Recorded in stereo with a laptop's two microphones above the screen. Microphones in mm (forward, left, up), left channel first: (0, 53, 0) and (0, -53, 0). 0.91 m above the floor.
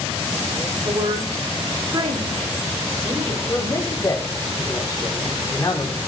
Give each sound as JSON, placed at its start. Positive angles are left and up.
{"t": 0.8, "sound": "a woman speaking", "side_deg": -55, "distance_m": 7.0}
{"t": 3.5, "sound": "a man speaking", "side_deg": 35, "distance_m": 2.5}